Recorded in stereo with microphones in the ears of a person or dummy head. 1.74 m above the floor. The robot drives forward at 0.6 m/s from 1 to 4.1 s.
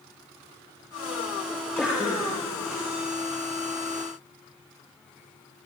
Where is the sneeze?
5° left (ahead or behind), 3.5 m.